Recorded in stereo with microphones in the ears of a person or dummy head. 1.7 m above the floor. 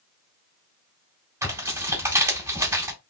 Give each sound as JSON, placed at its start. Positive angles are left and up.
{"t": 1.4, "sound": "tearing paper", "side_deg": -15, "distance_m": 1.8}